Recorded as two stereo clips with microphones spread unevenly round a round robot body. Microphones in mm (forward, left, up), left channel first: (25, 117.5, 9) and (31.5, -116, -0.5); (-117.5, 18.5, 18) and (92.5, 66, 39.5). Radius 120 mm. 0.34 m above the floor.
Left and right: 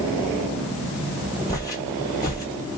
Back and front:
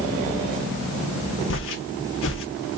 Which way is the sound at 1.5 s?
165° left.